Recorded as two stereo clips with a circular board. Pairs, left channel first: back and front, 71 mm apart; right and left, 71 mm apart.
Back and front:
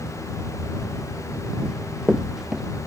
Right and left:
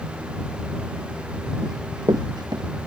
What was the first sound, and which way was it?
Running footsteps, 75° left.